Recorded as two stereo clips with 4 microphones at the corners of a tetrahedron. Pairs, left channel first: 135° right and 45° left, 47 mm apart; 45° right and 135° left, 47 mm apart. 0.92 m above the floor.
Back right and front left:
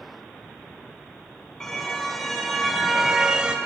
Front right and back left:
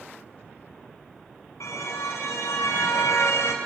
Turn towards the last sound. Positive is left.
turn(degrees=-20)